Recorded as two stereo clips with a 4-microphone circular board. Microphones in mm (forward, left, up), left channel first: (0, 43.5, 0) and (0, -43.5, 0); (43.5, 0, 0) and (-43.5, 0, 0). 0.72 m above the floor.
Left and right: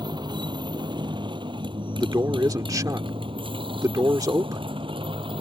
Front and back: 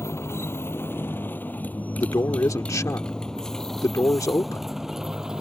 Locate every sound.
0.0 s a motorcycle: 60° right; by 5.4 s 95° right
2.0 s a man speaking: 45° right